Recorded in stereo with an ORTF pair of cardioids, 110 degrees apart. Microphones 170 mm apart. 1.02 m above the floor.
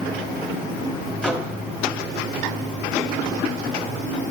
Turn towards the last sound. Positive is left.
turn(degrees=5)